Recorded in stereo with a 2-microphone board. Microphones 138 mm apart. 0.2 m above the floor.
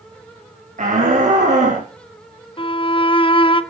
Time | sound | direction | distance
0.8 | a shout | 70° right (ahead or behind) | 5 m
2.6 | a violin | 40° left (ahead or behind) | 0.8 m